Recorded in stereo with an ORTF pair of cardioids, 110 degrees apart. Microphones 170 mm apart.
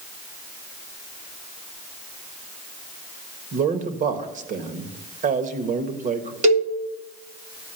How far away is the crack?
No crack in this recording.